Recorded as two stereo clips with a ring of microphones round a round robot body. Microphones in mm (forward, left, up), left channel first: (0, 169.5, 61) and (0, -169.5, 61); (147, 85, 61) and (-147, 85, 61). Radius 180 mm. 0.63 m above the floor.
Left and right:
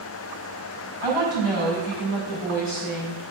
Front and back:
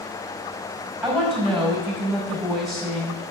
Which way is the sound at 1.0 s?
90° left.